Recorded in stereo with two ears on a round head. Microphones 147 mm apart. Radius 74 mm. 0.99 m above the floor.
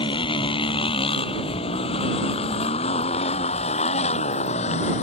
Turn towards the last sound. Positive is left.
turn(degrees=40)  # may be behind; listen again after turning